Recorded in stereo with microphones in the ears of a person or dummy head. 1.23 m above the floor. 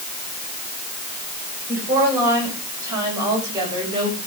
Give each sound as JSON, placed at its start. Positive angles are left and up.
{"t": 1.7, "sound": "a woman speaking", "side_deg": -15, "distance_m": 7.0}